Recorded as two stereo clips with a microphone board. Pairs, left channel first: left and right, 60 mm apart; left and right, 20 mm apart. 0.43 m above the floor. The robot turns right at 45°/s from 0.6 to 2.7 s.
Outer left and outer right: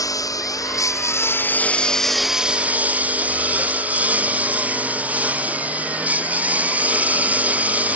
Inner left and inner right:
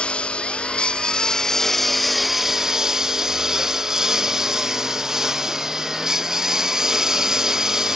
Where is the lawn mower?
110° left; by 8.0 s 155° right.